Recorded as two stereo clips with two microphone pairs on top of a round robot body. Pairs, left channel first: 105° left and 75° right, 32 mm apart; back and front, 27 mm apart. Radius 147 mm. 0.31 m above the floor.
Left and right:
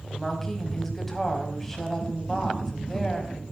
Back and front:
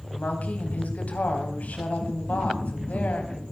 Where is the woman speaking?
170° right, 3.5 m.